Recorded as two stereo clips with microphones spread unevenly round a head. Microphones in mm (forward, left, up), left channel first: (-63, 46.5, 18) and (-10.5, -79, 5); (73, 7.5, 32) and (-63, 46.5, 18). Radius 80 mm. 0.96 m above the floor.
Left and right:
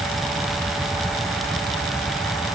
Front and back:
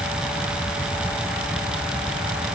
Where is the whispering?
I don't hear whispering.